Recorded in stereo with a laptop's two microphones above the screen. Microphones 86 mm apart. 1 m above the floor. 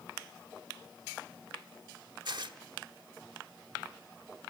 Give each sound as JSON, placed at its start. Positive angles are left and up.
{"t": 2.2, "sound": "tearing paper", "side_deg": -55, "distance_m": 1.0}